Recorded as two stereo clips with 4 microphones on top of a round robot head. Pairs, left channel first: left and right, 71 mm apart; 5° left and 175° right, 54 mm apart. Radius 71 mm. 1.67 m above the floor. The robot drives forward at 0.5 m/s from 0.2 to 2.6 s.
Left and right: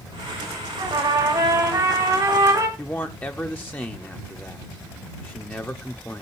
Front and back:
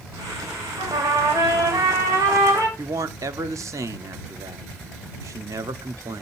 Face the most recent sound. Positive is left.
turn(degrees=160)